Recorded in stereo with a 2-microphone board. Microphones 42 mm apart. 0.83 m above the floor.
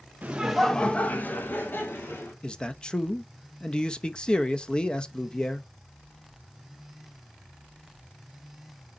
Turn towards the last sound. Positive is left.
turn(degrees=25)  # may be behind; listen again after turning